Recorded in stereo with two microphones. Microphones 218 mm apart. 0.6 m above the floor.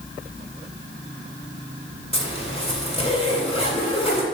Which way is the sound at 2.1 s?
25° left (ahead or behind).